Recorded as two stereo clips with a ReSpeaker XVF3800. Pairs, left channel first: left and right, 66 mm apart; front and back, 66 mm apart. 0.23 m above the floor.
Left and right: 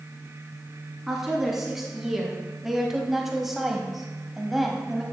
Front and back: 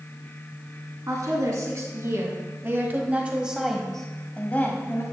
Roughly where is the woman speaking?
Behind.